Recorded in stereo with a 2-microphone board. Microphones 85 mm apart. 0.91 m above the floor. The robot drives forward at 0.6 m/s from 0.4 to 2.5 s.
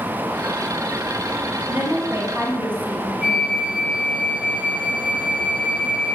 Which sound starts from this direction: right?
A woman speaking, at 1.7 s.